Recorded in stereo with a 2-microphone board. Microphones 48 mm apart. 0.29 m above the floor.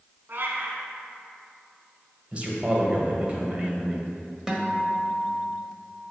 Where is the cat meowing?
55° right (ahead or behind), 1.0 m.